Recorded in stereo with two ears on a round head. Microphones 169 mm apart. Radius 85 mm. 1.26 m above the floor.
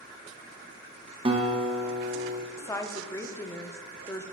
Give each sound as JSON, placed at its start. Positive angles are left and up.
{"t": 1.2, "sound": "a guitar", "side_deg": -25, "distance_m": 0.9}
{"t": 2.6, "sound": "a woman speaking", "side_deg": 15, "distance_m": 0.6}